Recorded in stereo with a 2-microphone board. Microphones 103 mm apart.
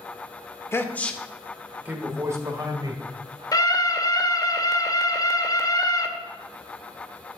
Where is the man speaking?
25° left (ahead or behind), 1.1 m; by 3.0 s 35° right (ahead or behind), 2 m.